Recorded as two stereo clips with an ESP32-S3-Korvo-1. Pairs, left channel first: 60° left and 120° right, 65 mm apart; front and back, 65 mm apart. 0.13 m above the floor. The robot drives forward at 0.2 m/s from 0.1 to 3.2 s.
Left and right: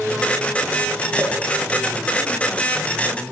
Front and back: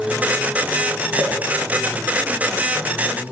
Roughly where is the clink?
Behind left.